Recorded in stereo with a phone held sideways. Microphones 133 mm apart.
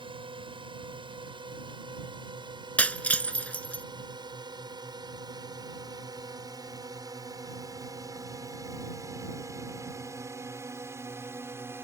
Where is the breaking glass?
10° left (ahead or behind).